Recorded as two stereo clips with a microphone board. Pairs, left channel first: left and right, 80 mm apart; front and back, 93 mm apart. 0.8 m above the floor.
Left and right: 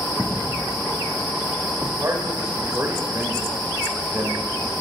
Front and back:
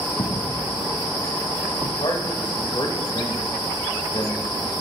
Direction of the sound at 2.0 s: 35° right.